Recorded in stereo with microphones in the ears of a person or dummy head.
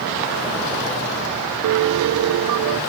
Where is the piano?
70° right (ahead or behind), 0.5 m.